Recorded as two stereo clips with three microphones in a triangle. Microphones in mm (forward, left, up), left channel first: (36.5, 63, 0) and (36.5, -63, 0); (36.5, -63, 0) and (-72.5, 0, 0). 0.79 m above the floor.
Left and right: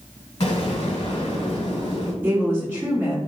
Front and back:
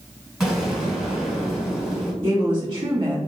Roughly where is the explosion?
Ahead left.